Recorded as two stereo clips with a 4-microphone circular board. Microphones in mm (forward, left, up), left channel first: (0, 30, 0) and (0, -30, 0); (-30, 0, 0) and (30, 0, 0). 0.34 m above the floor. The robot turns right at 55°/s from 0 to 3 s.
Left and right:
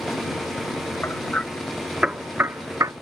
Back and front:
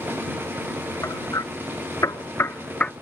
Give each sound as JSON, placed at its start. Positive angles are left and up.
{"t": 1.0, "sound": "hammering", "azimuth_deg": 145}